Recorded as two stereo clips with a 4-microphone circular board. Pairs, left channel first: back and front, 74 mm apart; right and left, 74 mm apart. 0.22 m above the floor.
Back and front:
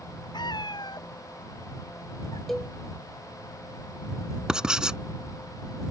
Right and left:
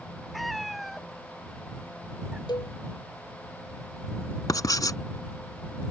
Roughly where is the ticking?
I don't hear ticking.